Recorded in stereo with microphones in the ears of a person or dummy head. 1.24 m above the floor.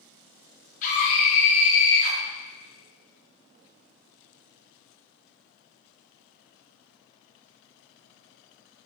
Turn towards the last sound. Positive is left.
turn(degrees=50)  # may be behind; listen again after turning